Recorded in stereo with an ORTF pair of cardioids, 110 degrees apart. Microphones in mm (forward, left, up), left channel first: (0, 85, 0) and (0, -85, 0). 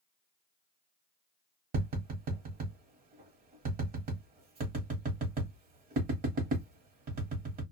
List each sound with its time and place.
1.7 s tapping: 65° right, 1.1 m